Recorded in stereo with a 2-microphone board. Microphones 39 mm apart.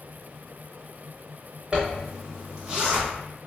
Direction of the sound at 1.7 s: 25° right (ahead or behind).